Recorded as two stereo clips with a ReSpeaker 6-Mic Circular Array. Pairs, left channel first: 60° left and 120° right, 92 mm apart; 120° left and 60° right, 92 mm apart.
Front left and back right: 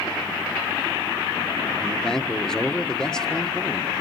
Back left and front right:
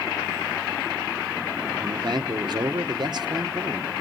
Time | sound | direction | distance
1.8 | a man speaking | 25° right | 1.2 m